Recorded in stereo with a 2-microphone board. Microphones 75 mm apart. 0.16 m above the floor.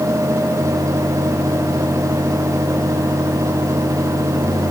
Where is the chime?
I don't hear a chime.